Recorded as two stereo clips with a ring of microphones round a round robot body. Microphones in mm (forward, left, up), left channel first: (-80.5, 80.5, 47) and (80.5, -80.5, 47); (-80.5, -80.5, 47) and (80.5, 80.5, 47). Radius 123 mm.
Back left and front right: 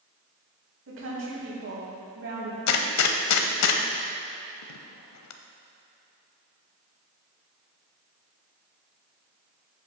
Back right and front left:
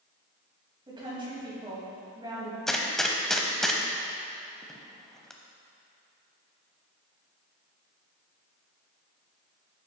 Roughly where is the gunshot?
Behind left.